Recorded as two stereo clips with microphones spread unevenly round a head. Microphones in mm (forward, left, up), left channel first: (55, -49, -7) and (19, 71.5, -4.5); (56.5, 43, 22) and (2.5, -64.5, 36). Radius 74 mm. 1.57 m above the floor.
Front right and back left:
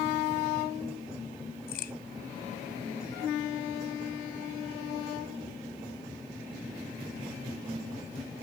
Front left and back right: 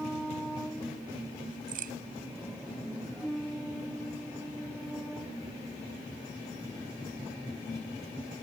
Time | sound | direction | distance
1.7 | a crack | 110° right | ?